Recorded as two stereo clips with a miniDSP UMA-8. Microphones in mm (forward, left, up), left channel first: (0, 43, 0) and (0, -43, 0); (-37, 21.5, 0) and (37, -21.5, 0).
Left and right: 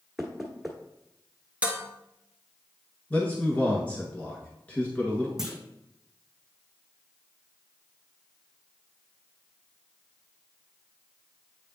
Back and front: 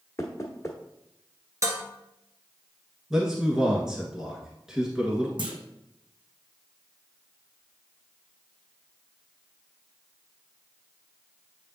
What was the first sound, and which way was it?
Knocking, straight behind.